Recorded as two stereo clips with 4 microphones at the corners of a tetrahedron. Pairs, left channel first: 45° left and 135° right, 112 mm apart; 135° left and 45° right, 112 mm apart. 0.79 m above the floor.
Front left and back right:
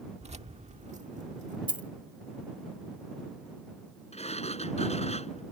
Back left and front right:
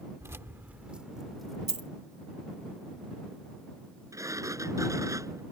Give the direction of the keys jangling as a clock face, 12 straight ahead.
4 o'clock.